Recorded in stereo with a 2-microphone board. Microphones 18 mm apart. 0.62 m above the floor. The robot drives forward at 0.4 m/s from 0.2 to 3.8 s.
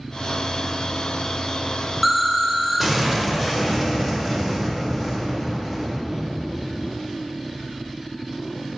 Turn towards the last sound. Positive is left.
turn(degrees=-5)  # may be behind; listen again after turning